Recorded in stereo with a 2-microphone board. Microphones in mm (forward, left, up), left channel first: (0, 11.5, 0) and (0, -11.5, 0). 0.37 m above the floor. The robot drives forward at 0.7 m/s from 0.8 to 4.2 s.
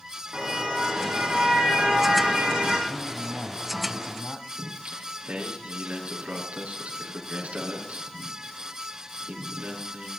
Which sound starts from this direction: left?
A man speaking, at 2.9 s.